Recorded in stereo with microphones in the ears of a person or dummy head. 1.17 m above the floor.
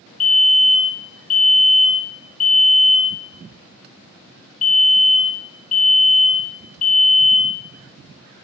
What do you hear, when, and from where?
0.2 s a fire alarm: 35° left (ahead or behind), 1.4 m